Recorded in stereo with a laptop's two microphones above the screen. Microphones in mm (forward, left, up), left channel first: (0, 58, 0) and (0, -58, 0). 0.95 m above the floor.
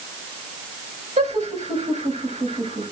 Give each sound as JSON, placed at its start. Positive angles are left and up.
{"t": 1.2, "sound": "laughter", "side_deg": -80, "distance_m": 7.5}